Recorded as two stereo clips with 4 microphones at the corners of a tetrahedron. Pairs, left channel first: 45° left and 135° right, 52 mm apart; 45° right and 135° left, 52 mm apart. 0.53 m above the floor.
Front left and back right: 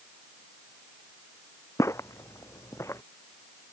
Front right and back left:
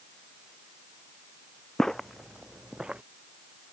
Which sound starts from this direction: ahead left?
Footsteps, at 1.8 s.